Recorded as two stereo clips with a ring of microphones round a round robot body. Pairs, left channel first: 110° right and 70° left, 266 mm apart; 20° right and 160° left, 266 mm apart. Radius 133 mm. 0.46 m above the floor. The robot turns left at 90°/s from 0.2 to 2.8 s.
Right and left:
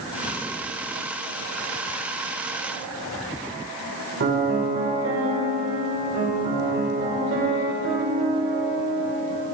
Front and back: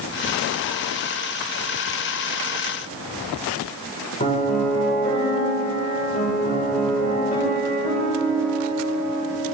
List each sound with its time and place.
4.2 s a piano: 35° left, 1.9 m